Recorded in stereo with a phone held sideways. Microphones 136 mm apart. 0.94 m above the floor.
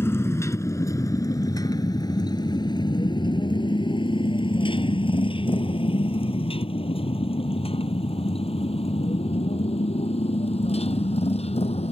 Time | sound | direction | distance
0.0 | a motorcycle | 15° left (ahead or behind) | ?